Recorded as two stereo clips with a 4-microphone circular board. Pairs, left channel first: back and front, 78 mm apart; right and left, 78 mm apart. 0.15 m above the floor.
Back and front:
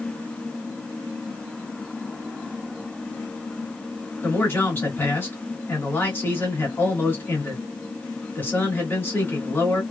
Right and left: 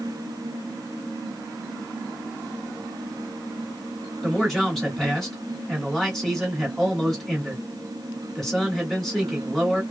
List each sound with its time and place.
4.2 s a man speaking: 170° right, 1.8 m